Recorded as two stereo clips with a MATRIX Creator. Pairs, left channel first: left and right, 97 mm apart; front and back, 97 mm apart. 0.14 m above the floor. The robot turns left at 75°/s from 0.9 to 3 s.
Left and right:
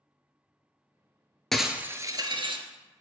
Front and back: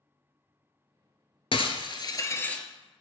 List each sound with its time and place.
1.5 s breaking glass: 5° left, 0.7 m; by 2.6 s 80° right, 0.7 m